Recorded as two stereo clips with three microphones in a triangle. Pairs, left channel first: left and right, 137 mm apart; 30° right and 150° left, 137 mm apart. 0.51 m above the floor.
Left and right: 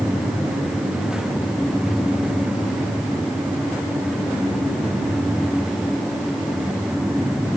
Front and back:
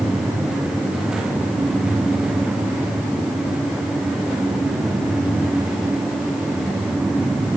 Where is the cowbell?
I don't hear a cowbell.